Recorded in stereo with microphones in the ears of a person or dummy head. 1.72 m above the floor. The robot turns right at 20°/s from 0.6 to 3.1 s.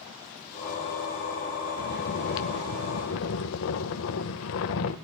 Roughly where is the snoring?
Left.